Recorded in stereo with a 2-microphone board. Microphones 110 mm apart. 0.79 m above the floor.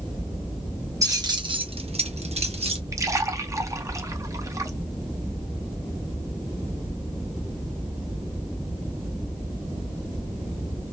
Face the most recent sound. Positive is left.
turn(degrees=-30)  # may be behind; listen again after turning